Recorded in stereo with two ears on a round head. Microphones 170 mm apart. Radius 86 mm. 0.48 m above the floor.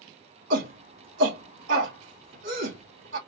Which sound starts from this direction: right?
A shout, at 0.5 s.